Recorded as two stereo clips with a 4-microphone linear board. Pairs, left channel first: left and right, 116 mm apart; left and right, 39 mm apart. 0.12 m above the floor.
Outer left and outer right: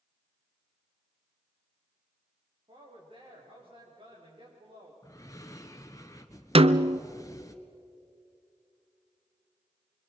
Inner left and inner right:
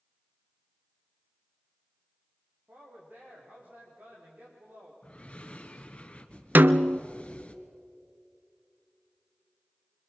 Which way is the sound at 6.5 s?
55° right (ahead or behind).